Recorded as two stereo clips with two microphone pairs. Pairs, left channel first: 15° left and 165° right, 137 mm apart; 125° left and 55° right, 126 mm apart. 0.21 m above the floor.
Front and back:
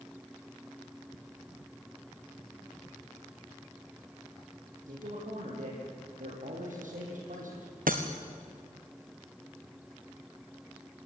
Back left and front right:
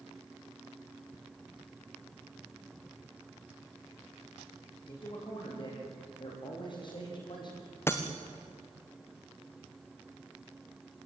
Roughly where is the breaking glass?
Behind.